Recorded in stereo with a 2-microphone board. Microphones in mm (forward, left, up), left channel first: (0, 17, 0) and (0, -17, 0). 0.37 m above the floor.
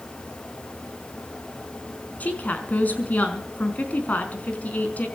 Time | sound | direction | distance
2.2 | a woman speaking | 50° left (ahead or behind) | 4.5 m